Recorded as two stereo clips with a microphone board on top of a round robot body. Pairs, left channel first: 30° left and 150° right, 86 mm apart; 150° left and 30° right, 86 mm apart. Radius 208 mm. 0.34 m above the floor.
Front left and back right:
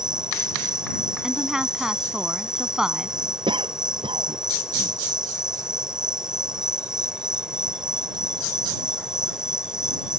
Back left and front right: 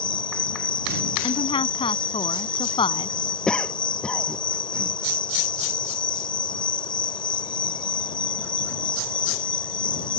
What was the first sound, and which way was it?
An insect, 130° left.